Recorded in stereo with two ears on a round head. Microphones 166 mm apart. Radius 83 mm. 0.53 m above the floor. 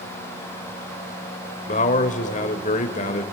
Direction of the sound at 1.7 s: 40° left (ahead or behind).